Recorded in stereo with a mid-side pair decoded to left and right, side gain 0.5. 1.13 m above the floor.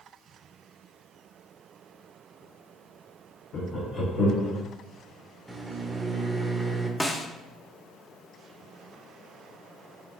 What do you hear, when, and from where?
3.5 s laughter: 50° left, 0.9 m; by 4.6 s 65° left, 2 m
5.5 s a microwave: 20° right, 0.6 m
7.0 s a snare drum: 5° left, 0.5 m